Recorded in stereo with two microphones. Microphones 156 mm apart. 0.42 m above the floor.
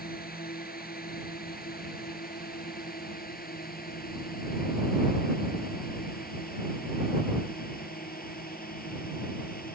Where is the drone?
75° left (ahead or behind).